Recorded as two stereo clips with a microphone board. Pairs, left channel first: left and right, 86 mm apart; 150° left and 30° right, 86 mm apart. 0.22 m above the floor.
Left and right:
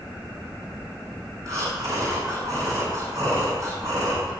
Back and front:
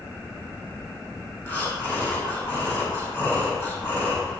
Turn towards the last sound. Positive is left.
turn(degrees=-145)